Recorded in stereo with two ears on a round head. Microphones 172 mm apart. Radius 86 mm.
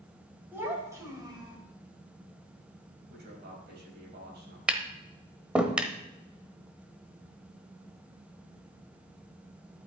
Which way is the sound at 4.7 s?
5° right (ahead or behind).